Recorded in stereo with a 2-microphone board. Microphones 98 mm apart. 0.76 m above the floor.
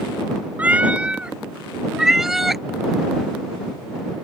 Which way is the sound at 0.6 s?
15° right (ahead or behind).